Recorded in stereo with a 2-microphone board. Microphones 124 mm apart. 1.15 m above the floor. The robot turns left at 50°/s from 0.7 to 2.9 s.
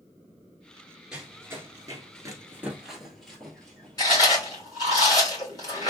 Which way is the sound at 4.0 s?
30° left (ahead or behind).